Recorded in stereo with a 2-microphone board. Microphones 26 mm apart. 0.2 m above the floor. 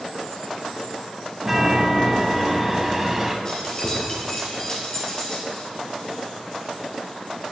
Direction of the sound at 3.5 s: 30° left (ahead or behind).